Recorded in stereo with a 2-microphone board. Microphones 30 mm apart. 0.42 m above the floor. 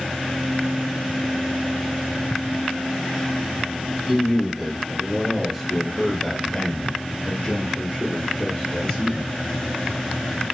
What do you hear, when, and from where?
4.1 s a man speaking: 10° right (ahead or behind), 2 m; by 9.3 s 30° left (ahead or behind), 1.7 m